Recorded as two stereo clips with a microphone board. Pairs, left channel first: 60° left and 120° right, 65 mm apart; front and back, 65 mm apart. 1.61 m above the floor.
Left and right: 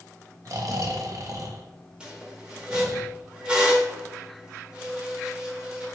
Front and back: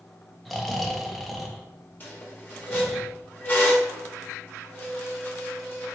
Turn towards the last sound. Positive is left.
turn(degrees=-50)